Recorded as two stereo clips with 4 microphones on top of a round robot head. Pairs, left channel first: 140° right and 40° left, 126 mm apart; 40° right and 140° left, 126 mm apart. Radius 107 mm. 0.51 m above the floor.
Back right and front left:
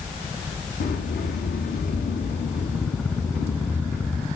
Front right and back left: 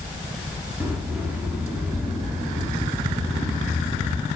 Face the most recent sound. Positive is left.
turn(degrees=-140)